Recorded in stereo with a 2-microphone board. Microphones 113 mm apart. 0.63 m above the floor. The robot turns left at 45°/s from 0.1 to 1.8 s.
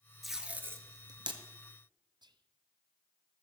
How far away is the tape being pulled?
About 1.5 m.